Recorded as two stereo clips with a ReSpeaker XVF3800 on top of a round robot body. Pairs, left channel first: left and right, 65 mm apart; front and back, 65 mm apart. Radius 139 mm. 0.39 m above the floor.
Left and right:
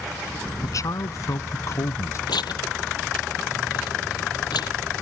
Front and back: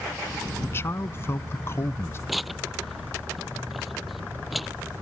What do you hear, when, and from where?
0.6 s a man speaking: 55° left; by 2.2 s 50° left
2.3 s tearing paper: 90° left